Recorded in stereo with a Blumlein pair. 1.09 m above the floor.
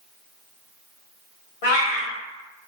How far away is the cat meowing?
About 1.4 m.